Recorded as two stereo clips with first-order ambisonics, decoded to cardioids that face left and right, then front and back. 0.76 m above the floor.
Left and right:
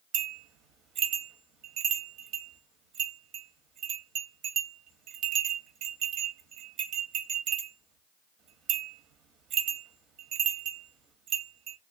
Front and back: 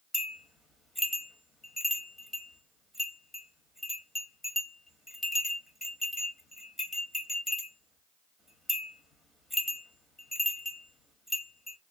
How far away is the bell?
About 1.0 m.